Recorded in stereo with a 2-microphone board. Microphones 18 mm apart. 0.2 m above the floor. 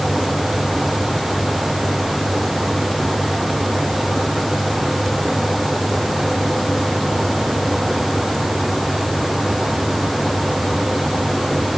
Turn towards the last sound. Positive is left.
No sound to turn to.